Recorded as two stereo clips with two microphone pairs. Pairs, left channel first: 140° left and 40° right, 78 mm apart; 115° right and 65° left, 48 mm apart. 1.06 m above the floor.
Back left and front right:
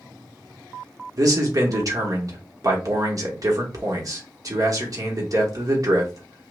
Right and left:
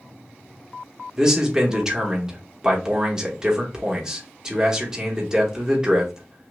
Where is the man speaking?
5° right, 1.1 m.